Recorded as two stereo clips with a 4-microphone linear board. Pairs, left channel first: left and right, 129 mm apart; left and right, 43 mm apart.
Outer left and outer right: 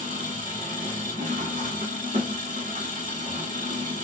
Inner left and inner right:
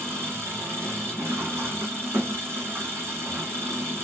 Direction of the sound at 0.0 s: 80° right.